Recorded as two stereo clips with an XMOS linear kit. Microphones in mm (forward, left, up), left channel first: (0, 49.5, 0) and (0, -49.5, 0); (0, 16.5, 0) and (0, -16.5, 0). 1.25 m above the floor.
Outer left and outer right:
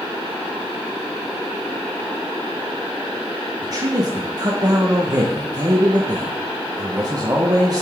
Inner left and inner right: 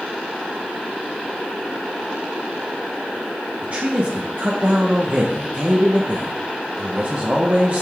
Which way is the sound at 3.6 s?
40° right (ahead or behind).